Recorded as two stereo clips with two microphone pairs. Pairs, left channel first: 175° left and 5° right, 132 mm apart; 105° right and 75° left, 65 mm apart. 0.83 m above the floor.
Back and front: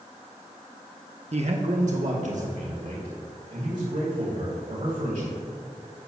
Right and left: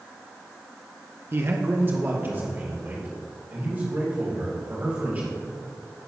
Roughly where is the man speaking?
Ahead left.